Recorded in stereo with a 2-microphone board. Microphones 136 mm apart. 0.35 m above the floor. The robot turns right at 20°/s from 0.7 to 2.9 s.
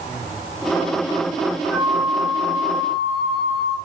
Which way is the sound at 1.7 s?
15° right (ahead or behind).